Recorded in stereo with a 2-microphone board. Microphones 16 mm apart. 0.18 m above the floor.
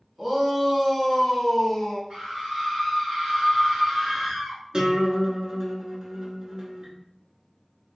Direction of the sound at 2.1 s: 50° right (ahead or behind).